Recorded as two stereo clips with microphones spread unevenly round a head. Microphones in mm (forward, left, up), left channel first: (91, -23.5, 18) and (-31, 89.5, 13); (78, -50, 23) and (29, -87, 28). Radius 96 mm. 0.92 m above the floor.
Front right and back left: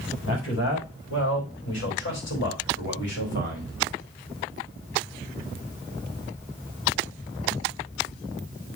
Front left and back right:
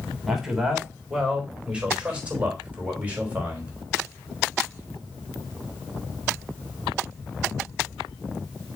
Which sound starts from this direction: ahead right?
A man speaking, at 0.3 s.